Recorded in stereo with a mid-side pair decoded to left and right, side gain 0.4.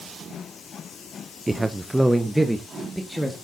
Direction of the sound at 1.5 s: 20° right.